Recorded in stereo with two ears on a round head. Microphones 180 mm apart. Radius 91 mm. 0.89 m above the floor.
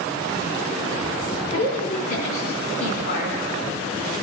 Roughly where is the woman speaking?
Left.